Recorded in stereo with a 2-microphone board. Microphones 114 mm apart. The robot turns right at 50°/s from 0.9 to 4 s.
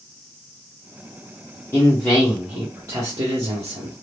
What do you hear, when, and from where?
1.7 s a man speaking: 155° left, 1.0 m; by 3.9 s 95° right, 1.0 m